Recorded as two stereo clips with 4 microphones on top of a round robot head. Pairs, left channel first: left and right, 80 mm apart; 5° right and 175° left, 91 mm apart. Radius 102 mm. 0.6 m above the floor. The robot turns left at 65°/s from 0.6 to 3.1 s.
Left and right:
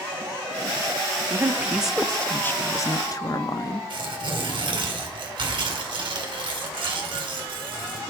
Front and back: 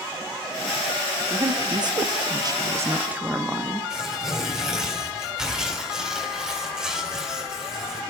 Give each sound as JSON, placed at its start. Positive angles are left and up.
{"t": 1.3, "sound": "a woman speaking", "azimuth_deg": -135, "distance_m": 0.8}
{"t": 3.9, "sound": "tearing paper", "azimuth_deg": -100, "distance_m": 3.5}